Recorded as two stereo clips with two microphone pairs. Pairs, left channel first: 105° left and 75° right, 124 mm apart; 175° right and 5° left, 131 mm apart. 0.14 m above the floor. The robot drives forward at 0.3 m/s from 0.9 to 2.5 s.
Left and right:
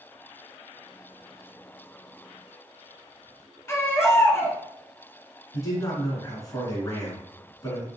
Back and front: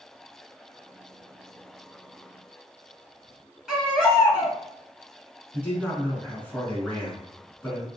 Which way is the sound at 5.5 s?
115° left.